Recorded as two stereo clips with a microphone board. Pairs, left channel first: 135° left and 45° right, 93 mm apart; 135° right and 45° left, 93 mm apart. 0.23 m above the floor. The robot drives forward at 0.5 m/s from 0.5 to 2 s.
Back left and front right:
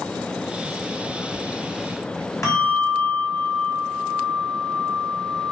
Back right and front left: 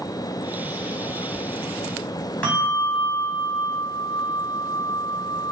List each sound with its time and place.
2.4 s a bell: 160° left, 1.4 m